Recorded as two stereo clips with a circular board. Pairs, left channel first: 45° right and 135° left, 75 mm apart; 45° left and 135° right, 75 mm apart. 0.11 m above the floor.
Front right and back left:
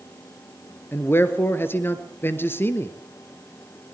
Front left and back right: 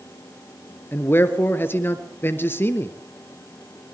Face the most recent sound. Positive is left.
turn(degrees=0)